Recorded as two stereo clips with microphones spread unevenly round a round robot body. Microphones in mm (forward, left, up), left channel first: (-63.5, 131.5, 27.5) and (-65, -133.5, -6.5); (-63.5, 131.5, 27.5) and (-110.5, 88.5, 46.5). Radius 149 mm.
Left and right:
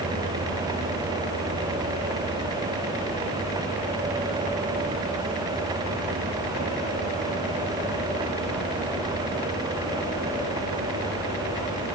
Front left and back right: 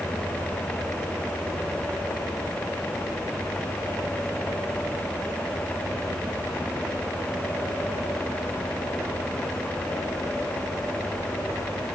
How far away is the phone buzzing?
No phone buzzing in this recording.